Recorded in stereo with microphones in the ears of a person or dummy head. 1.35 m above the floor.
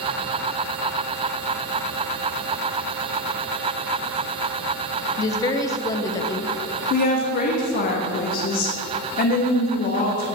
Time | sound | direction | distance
5.2 | a woman speaking | 25° left (ahead or behind) | 0.6 m
6.9 | a woman speaking | 45° left (ahead or behind) | 0.7 m